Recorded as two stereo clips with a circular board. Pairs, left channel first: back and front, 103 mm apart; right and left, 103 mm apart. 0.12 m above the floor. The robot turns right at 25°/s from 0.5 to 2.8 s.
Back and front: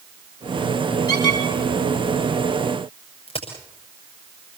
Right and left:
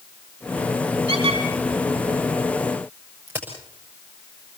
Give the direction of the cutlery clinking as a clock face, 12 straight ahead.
I don't hear cutlery clinking.